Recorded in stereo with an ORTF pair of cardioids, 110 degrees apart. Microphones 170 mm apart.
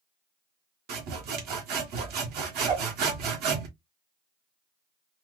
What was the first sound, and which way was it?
Sawing, 70° right.